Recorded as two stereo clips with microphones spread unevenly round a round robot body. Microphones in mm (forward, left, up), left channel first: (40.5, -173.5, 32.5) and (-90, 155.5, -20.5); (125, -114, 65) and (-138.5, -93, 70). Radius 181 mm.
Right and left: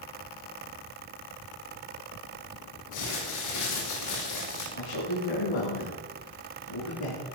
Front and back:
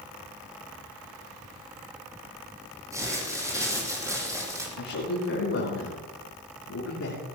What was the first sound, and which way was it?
Crumpling, 105° right.